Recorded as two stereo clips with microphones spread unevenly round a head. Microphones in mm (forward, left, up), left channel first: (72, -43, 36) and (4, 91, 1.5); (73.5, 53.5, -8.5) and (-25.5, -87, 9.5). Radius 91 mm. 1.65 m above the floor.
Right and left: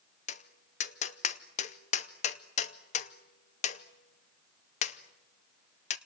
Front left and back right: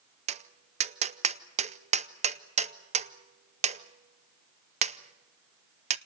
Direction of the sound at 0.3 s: 85° right.